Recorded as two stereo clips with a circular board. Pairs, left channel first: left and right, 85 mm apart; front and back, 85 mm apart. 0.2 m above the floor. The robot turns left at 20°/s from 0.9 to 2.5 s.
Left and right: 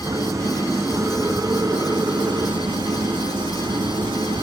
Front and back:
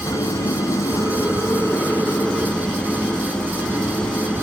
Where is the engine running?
45° right, 2 m; by 4.4 s 80° right, 2 m.